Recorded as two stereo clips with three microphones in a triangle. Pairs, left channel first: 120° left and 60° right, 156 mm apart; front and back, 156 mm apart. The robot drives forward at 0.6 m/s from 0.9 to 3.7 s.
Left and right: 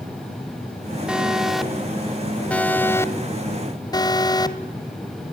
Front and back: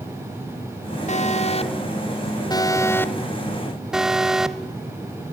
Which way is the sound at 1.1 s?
25° left.